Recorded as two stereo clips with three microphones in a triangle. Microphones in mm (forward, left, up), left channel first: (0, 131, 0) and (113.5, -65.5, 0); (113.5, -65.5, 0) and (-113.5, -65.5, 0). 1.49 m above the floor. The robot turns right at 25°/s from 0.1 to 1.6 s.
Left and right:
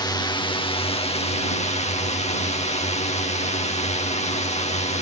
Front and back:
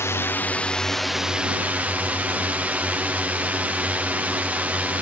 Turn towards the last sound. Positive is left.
turn(degrees=105)